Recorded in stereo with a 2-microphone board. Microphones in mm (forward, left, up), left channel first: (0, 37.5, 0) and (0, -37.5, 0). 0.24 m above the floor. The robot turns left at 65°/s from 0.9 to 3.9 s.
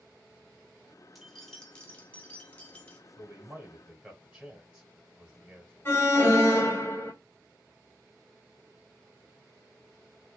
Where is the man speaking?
25° right (ahead or behind), 1.0 m; by 5.7 s 15° right (ahead or behind), 1.0 m.